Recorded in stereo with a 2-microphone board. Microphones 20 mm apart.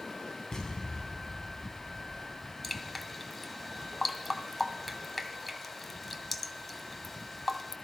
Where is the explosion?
30° left (ahead or behind), 3.5 m.